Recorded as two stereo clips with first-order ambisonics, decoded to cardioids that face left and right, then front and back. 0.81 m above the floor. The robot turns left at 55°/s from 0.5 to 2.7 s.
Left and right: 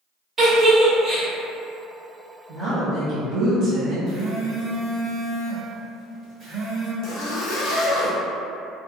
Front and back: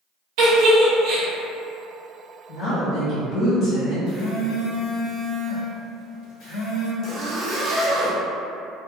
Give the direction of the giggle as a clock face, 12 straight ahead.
6 o'clock.